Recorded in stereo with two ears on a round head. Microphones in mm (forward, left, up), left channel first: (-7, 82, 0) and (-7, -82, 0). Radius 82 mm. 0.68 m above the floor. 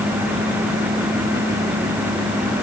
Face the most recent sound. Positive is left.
No sound to turn to.